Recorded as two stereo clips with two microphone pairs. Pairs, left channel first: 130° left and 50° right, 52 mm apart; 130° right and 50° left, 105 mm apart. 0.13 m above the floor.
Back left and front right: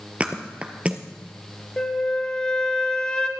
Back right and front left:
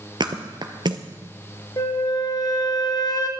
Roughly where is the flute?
Behind.